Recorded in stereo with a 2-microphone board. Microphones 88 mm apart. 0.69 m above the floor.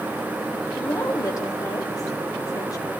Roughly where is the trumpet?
I don't hear a trumpet.